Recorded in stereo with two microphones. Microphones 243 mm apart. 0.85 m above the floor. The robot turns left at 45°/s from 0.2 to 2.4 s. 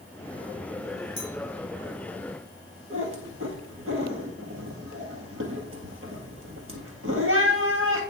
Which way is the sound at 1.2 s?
55° left (ahead or behind).